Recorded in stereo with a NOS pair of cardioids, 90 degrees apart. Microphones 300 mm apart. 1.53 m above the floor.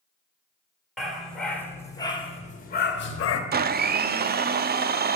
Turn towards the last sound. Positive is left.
turn(degrees=-35)